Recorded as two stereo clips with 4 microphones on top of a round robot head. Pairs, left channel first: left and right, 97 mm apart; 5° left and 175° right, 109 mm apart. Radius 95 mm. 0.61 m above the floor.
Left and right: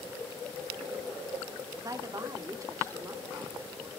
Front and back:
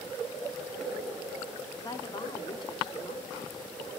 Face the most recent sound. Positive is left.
turn(degrees=-35)